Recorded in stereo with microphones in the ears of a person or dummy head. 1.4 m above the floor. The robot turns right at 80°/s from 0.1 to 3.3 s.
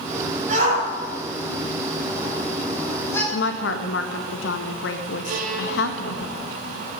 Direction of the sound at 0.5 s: 50° right (ahead or behind).